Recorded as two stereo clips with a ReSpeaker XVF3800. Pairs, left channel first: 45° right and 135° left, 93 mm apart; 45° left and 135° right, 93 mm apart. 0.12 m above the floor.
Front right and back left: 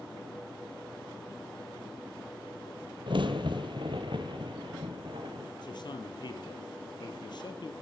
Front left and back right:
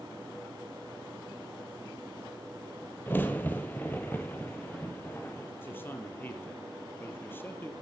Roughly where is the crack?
Behind left.